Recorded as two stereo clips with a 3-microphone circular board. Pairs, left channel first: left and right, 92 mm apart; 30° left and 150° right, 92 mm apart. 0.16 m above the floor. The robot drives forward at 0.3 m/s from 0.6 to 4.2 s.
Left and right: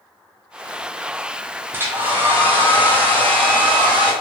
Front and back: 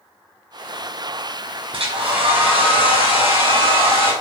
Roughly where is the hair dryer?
Behind right.